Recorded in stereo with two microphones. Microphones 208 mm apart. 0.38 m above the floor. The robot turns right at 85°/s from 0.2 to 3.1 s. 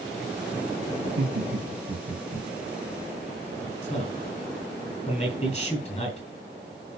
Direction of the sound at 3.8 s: 35° left (ahead or behind).